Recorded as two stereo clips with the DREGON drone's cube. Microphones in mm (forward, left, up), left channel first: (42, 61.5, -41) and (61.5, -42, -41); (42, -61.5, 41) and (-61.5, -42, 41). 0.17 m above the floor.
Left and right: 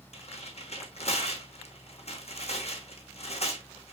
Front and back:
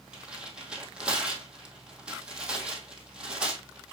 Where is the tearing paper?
90° left, 1.7 m.